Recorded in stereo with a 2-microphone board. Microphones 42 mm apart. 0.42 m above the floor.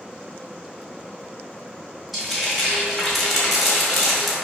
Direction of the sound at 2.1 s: Centre (ahead or behind).